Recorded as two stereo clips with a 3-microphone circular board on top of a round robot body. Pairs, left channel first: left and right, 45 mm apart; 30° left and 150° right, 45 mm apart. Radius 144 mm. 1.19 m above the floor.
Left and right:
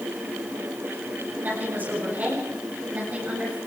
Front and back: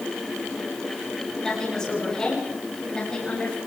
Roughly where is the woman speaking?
Ahead right.